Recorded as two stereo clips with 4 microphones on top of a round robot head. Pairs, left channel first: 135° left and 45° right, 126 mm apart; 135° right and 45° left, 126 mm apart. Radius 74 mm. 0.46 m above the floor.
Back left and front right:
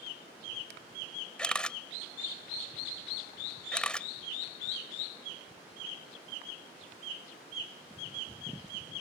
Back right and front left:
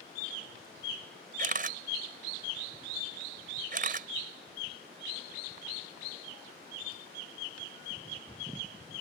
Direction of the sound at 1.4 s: 55° left.